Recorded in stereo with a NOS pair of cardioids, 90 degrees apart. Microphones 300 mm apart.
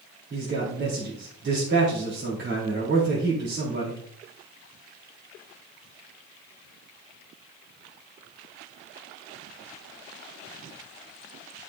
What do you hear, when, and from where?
0.3 s a man speaking: 40° right, 3.5 m